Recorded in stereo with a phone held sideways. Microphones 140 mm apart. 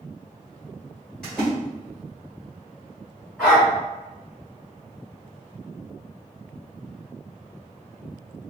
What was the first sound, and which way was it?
A splash, 5° left (ahead or behind).